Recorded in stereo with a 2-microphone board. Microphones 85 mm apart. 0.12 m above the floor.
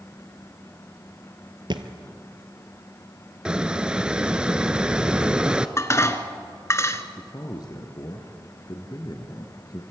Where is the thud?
65° right (ahead or behind), 1.2 m.